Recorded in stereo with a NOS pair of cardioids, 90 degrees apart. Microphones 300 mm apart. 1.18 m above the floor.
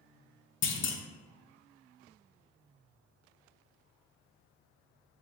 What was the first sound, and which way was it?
A clunk, 45° left.